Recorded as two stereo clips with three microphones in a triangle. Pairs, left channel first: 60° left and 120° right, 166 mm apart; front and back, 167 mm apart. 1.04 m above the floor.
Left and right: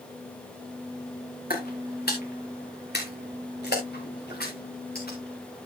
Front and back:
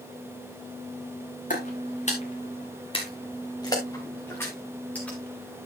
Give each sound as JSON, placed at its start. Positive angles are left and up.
{"t": 1.5, "sound": "footsteps", "azimuth_deg": 35, "distance_m": 4.0}